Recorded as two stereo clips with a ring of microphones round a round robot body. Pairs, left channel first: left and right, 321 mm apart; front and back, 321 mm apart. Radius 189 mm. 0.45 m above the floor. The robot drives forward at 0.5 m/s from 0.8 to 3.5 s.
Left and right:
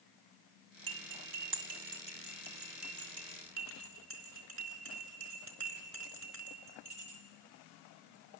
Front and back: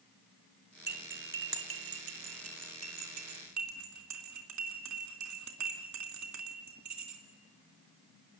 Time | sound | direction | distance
0.9 | cutlery clinking | 120° right | 1.9 m